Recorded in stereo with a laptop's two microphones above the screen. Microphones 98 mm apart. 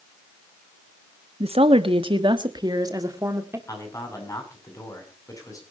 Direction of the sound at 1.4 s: 80° right.